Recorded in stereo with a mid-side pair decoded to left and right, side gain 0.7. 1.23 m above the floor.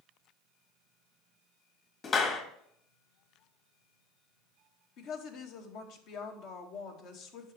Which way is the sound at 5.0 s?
60° left.